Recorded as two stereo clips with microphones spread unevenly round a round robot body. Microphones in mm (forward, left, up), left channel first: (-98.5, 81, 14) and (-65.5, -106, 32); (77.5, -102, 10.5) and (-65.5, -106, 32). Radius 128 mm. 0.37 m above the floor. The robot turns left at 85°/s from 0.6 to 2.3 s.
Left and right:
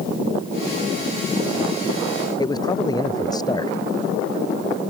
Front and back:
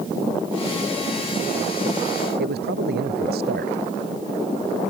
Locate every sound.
2.4 s a man speaking: 170° left